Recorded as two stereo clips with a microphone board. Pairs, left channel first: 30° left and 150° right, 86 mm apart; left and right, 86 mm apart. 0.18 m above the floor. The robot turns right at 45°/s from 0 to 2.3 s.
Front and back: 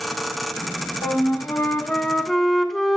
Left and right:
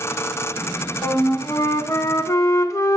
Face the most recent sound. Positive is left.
turn(degrees=115)